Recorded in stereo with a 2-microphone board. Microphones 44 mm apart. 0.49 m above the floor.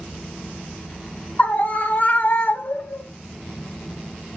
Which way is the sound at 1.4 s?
40° left (ahead or behind).